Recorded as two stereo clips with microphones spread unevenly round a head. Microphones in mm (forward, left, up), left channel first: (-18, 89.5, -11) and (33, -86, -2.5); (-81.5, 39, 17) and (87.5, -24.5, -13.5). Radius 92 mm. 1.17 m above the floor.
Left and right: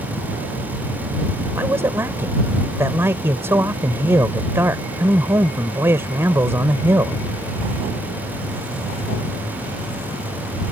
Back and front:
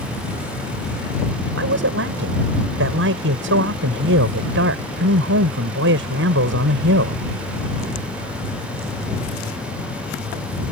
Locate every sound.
1.5 s a man speaking: 5° left